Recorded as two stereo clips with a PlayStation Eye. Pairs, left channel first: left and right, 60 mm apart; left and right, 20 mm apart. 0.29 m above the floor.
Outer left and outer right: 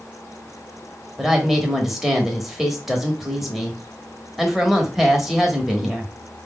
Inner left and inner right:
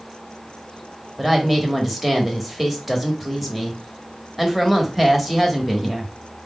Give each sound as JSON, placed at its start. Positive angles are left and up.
{"t": 1.2, "sound": "a woman speaking", "side_deg": -5, "distance_m": 1.0}